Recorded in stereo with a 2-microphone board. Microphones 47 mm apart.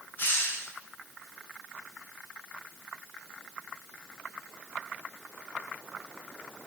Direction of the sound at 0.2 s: 35° left (ahead or behind).